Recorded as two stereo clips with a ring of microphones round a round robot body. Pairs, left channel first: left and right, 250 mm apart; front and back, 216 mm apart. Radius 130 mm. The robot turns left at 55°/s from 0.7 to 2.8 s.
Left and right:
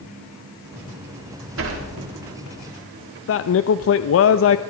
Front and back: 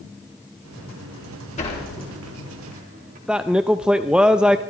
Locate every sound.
1.6 s a sliding door: 60° right, 2.5 m; by 3.2 s 125° right, 2.5 m
3.3 s a man speaking: 95° left, 0.6 m